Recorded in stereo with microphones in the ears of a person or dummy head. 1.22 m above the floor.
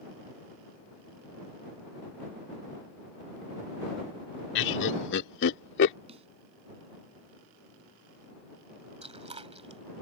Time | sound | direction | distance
4.5 | laughter | 60° left (ahead or behind) | ?
6.1 | a snare drum | 35° right (ahead or behind) | ?
9.0 | chewing | 30° right (ahead or behind) | ?